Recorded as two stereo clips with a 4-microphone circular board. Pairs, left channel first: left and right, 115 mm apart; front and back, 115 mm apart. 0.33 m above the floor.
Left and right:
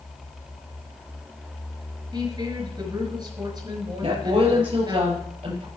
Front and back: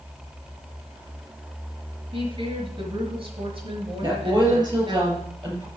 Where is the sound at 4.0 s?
125° right, 6.5 m.